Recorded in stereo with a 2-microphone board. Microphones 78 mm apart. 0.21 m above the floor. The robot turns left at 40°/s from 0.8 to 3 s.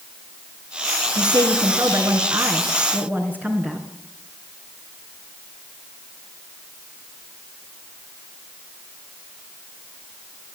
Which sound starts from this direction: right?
A woman speaking, at 1.1 s.